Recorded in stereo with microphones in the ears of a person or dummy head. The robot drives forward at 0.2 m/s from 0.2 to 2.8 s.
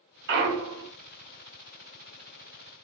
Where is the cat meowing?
No cat meowing in this recording.